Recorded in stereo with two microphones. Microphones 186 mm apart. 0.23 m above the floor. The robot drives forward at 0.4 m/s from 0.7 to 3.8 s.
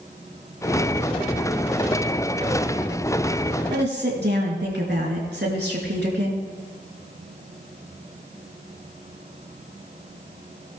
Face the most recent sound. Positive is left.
turn(degrees=-65)  # may be behind; listen again after turning